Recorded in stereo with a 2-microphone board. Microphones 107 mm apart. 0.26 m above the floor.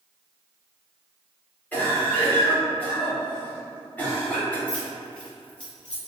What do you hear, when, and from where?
1.7 s a cough: 15° left (ahead or behind), 1.1 m
4.7 s keys jangling: 10° left (ahead or behind), 1.5 m